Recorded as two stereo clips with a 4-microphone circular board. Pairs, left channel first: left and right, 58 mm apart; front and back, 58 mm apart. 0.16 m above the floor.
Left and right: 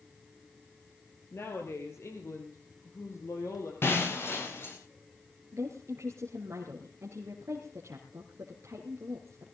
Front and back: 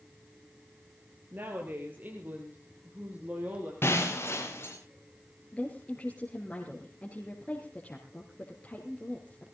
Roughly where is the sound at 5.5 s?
Ahead right.